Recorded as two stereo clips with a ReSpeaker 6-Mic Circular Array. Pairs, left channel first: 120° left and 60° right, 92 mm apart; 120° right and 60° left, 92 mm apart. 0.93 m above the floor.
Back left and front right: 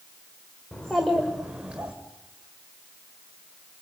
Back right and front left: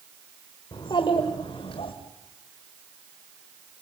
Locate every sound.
0.7 s a child speaking: 160° right, 2.5 m; by 1.9 s 135° right, 3 m